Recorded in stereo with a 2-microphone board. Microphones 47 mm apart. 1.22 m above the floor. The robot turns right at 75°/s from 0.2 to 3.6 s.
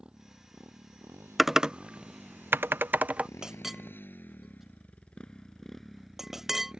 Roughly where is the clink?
Centre.